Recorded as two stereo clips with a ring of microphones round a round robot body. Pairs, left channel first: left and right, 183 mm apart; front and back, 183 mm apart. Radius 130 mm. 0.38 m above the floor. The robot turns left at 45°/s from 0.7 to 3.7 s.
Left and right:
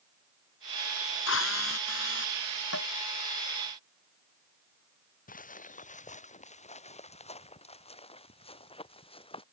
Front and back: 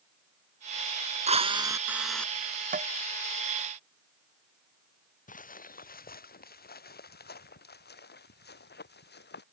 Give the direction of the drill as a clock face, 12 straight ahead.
8 o'clock.